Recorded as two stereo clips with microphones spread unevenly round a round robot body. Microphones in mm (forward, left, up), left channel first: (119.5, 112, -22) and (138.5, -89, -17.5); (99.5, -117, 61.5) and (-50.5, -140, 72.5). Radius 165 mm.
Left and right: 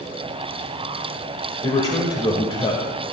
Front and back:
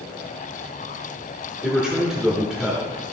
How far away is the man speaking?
About 0.9 m.